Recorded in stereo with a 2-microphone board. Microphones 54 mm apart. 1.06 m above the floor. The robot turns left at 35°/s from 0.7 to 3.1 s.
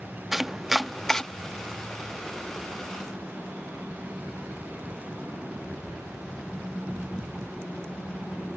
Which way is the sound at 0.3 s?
5° right (ahead or behind).